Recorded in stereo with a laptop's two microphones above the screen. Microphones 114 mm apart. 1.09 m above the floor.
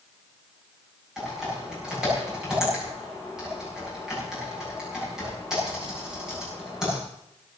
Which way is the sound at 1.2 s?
5° right (ahead or behind).